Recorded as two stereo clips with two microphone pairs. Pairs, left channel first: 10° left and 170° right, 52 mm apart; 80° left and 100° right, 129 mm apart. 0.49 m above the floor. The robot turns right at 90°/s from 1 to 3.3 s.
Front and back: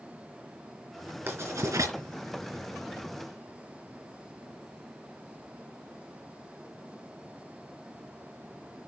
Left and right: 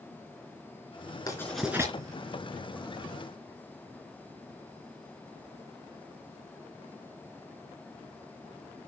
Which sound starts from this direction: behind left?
Writing, at 1.3 s.